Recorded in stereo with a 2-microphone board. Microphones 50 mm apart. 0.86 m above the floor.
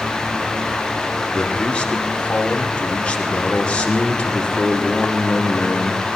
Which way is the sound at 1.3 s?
25° left (ahead or behind).